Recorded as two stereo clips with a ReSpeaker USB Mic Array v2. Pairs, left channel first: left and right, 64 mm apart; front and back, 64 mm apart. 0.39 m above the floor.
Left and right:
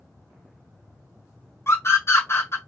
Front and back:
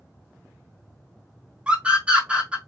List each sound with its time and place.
1.7 s a scream: 115° left, 1.6 m